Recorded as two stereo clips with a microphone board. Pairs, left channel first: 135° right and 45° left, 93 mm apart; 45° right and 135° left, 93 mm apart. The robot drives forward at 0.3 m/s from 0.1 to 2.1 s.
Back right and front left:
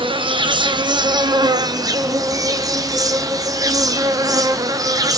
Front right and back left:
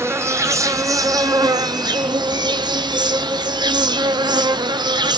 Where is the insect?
75° left, 1.5 m; by 5.2 s 95° left, 1.4 m.